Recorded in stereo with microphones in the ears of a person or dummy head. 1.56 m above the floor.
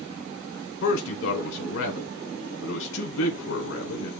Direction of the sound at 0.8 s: 70° left (ahead or behind).